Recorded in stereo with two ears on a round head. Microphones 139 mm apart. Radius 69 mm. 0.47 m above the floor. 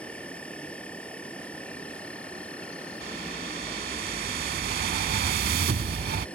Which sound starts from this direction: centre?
An insect, at 0.0 s.